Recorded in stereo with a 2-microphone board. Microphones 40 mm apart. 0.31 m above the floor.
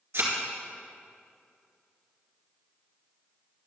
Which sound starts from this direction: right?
A thud, at 0.1 s.